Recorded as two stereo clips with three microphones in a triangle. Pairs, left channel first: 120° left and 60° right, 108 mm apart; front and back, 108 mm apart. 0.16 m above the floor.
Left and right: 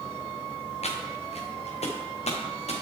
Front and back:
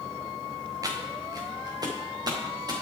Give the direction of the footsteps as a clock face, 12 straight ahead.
8 o'clock.